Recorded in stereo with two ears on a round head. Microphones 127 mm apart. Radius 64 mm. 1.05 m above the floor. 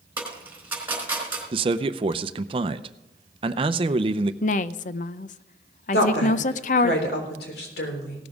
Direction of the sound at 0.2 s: 15° right (ahead or behind).